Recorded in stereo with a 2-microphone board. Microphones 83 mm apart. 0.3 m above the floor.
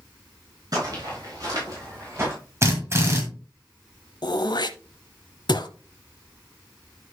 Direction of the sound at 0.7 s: 50° right (ahead or behind).